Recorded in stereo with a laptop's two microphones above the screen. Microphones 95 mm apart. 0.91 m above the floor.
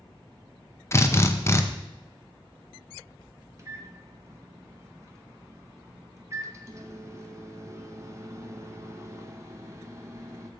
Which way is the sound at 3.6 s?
30° right (ahead or behind).